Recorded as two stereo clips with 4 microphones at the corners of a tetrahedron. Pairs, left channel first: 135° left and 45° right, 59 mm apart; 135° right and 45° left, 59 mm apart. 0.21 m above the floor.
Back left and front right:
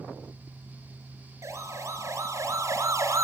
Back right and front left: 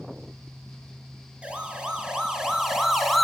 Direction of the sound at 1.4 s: 25° right.